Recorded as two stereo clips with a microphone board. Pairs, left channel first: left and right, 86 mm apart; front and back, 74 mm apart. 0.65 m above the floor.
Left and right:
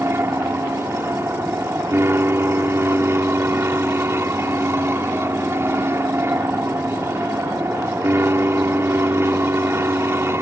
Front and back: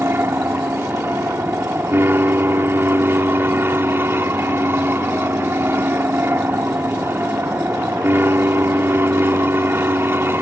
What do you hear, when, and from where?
0.0 s an aircraft: 135° right